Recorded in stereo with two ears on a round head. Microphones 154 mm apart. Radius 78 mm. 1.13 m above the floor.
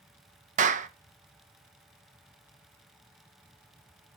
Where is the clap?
45° right (ahead or behind), 0.9 m.